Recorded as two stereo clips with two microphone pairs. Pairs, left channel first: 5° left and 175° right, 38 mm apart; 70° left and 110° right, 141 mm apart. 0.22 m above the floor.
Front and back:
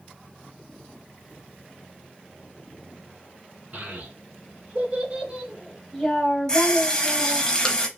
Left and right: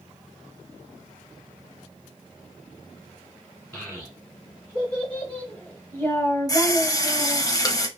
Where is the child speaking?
160° left, 1.4 m; by 7.5 s straight ahead, 1.1 m.